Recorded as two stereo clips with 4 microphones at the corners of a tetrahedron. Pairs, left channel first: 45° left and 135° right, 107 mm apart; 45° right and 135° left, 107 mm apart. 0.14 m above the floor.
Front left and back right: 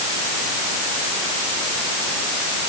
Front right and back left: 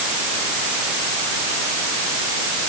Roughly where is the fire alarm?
No fire alarm in this recording.